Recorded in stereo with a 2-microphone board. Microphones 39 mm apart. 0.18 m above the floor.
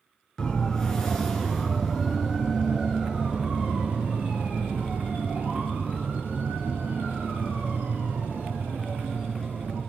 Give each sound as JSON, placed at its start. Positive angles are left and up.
{"t": 0.4, "sound": "a siren", "side_deg": 15, "distance_m": 3.0}